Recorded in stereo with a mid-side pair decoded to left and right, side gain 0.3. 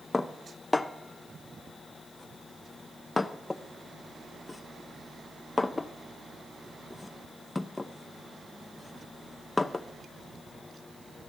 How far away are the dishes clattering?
About 0.7 m.